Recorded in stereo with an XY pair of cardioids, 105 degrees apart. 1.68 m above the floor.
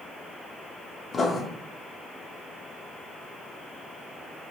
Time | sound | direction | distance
1.1 | writing | 35° left | 0.5 m